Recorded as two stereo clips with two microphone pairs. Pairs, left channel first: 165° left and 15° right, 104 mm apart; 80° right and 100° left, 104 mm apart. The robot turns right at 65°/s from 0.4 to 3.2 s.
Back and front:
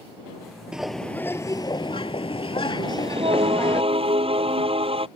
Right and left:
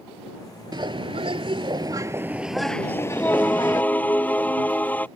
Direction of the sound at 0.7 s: 65° left.